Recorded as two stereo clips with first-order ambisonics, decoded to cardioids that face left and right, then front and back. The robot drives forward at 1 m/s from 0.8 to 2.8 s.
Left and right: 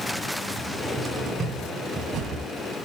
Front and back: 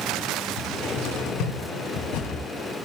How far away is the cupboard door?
About 3.5 m.